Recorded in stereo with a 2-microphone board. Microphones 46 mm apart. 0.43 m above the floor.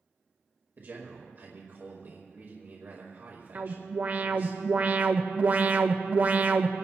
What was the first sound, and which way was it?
A man speaking, 50° right (ahead or behind).